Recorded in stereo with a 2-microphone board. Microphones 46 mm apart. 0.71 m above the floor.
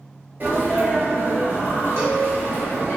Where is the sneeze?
45° right (ahead or behind), 1.0 m.